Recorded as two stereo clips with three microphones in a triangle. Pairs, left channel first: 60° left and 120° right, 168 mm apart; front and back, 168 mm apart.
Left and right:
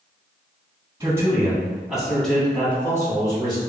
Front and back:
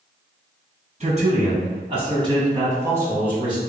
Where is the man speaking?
175° left, 1.9 m; by 3.6 s 100° left, 1.7 m.